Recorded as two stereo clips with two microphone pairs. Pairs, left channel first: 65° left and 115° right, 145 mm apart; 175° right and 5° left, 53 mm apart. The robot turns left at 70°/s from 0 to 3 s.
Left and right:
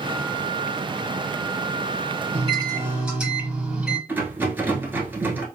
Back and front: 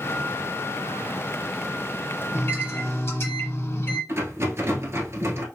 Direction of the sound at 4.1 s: 35° right.